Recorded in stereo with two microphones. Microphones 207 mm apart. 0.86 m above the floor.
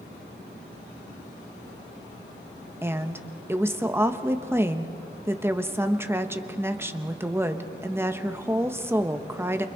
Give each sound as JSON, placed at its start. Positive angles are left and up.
{"t": 2.8, "sound": "a woman speaking", "side_deg": -10, "distance_m": 1.0}